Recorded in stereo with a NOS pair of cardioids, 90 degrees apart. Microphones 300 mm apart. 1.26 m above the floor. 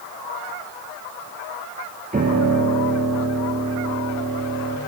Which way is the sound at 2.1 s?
25° right.